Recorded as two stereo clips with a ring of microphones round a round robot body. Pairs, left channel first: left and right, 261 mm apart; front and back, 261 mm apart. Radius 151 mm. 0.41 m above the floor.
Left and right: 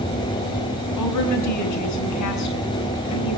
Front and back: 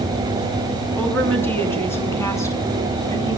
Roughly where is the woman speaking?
Left.